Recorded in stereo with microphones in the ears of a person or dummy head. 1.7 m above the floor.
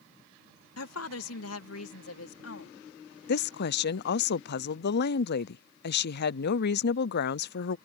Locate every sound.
0.8 s a woman speaking: 90° left; by 2.7 s 85° left
3.3 s a woman speaking: 60° left (ahead or behind)